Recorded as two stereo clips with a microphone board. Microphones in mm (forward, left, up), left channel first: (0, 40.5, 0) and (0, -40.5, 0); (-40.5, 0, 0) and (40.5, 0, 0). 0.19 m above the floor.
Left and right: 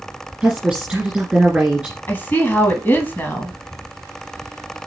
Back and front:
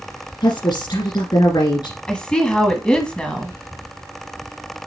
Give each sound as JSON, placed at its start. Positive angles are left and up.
{"t": 0.4, "sound": "a woman speaking", "azimuth_deg": -170, "distance_m": 2.5}
{"t": 2.1, "sound": "a woman speaking", "azimuth_deg": 115, "distance_m": 1.2}